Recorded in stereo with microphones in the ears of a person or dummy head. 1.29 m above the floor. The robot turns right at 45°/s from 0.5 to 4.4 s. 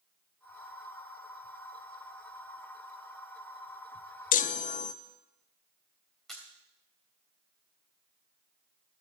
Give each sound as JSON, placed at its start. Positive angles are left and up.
{"t": 4.3, "sound": "a chime", "side_deg": 35, "distance_m": 0.6}
{"t": 6.3, "sound": "a camera shutter", "side_deg": 0, "distance_m": 3.5}